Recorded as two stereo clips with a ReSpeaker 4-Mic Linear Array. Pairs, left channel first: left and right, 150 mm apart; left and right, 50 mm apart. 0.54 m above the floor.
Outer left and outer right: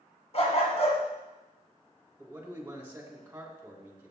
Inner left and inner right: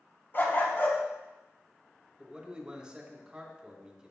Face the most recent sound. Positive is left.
turn(degrees=-15)  # may be behind; listen again after turning